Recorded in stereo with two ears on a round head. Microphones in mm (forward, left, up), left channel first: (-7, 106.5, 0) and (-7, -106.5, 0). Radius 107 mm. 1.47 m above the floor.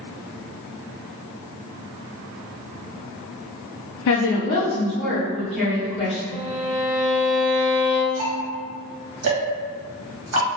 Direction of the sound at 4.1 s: 60° left (ahead or behind).